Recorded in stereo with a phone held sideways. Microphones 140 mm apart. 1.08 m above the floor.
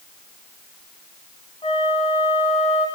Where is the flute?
45° left (ahead or behind), 1.5 m.